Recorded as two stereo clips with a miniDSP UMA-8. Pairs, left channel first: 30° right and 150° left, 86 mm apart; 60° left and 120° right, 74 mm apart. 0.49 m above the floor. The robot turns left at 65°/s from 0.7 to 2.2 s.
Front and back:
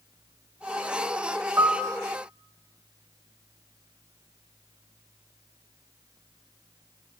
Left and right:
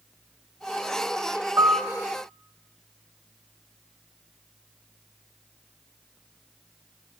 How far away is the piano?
About 1.7 m.